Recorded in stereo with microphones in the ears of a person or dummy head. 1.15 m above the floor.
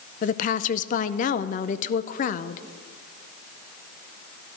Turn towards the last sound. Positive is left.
turn(degrees=45)  # may be behind; listen again after turning